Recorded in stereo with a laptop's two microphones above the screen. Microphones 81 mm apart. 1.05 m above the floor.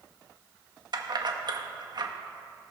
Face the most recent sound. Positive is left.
turn(degrees=-55)  # may be behind; listen again after turning